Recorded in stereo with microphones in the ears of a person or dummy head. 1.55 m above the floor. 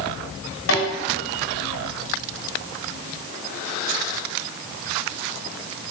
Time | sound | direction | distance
0.7 | a snare drum | 75° left (ahead or behind) | 5 m